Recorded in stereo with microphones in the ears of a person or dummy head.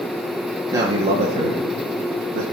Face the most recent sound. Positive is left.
turn(degrees=-65)  # may be behind; listen again after turning